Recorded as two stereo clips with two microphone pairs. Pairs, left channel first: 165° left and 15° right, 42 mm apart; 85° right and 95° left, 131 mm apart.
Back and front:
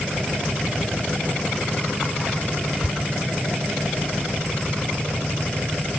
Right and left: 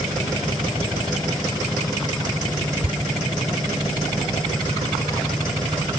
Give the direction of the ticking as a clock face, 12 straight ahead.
8 o'clock.